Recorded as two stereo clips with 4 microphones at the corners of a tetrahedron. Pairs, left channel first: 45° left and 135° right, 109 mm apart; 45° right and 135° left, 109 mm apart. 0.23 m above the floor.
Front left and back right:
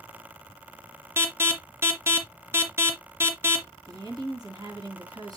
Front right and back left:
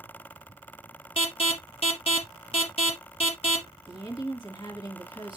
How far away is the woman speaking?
About 3.5 m.